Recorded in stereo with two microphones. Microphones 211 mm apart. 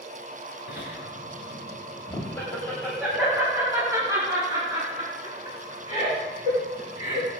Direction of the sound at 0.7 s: 60° left (ahead or behind).